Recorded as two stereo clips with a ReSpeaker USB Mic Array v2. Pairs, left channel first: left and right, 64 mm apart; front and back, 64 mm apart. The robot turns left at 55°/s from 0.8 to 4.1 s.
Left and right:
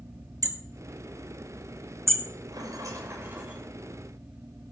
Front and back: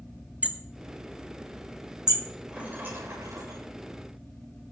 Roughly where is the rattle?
Right.